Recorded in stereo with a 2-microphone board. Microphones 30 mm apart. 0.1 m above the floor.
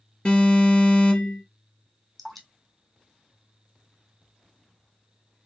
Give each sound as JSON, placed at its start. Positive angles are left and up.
{"t": 0.2, "sound": "an alarm", "side_deg": 35, "distance_m": 3.0}
{"t": 2.2, "sound": "dripping", "side_deg": 10, "distance_m": 1.6}